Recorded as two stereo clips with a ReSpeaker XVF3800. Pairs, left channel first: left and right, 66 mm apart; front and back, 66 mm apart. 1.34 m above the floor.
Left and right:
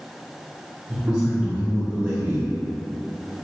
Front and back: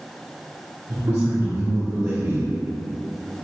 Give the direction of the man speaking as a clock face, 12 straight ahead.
5 o'clock.